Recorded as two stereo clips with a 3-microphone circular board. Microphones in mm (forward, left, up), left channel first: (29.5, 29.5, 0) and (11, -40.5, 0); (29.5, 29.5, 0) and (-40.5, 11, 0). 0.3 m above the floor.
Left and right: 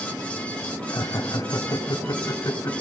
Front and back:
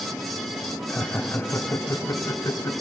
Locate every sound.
0.9 s laughter: 85° left, 1.8 m; by 2.7 s 40° left, 2.5 m